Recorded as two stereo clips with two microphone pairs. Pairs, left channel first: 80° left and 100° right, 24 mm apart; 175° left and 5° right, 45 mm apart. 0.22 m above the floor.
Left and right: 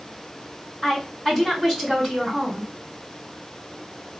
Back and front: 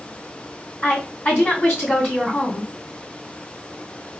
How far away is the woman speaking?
About 1.9 m.